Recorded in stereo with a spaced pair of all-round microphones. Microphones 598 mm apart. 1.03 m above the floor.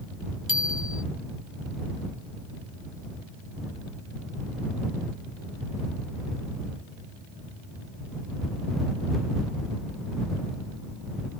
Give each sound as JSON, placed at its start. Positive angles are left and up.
{"t": 0.5, "sound": "a bicycle bell", "side_deg": 45}